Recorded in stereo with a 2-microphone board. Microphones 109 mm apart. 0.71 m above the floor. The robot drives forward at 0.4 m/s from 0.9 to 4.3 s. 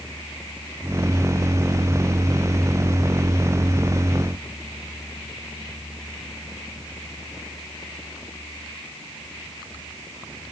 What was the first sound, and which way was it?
Only background noise.